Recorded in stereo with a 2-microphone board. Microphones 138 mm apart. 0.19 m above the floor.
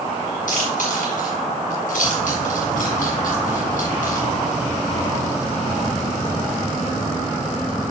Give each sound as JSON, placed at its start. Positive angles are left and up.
{"t": 0.5, "sound": "chewing", "side_deg": 70, "distance_m": 4.5}